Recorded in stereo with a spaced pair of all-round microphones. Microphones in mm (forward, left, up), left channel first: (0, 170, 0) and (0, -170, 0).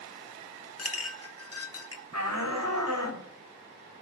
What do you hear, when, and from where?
0.8 s a clink: 50° left (ahead or behind), 0.9 m
2.1 s a shout: 65° right (ahead or behind), 4 m